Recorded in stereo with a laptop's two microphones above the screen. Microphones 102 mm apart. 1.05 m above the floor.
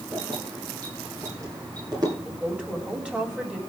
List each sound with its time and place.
0.1 s keys jangling: 25° right (ahead or behind), 9.5 m; by 2.1 s 40° right (ahead or behind), 11 m
2.2 s a woman speaking: 10° right (ahead or behind), 6.5 m